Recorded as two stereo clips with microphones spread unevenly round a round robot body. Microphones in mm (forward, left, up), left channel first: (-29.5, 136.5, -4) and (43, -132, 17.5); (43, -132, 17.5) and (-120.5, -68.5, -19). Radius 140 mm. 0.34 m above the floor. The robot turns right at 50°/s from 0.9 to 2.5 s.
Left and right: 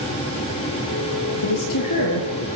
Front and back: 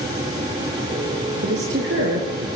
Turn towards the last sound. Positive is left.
turn(degrees=160)